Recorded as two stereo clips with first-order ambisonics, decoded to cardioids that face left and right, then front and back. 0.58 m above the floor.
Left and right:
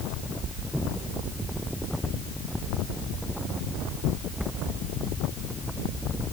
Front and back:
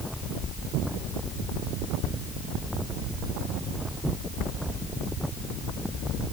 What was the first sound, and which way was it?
Only background noise.